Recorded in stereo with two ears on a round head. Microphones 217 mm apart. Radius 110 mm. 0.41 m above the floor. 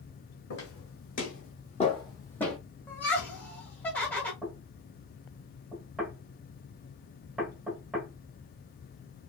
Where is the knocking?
Centre (ahead or behind), 0.9 m.